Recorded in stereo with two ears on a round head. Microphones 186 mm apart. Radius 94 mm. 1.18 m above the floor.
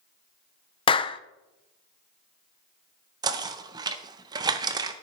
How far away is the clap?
About 0.5 m.